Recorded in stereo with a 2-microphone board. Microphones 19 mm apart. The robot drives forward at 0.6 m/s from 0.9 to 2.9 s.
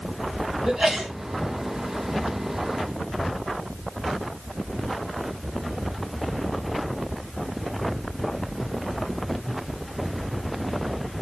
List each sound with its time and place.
0.7 s a sneeze: 35° right (ahead or behind), 3.5 m